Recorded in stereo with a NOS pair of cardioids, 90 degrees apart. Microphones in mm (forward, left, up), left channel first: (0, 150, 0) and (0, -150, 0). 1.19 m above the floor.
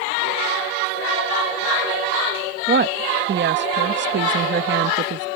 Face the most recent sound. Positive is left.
turn(degrees=-40)